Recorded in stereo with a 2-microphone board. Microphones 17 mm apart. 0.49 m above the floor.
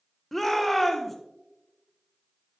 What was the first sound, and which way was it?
A shout, 10° left (ahead or behind).